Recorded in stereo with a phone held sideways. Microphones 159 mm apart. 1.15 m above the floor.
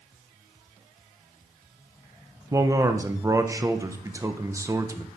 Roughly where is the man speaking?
Centre.